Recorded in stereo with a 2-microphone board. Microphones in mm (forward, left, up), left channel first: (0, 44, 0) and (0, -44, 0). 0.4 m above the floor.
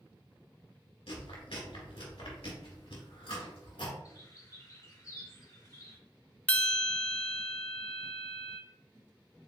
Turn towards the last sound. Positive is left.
turn(degrees=15)  # may be behind; listen again after turning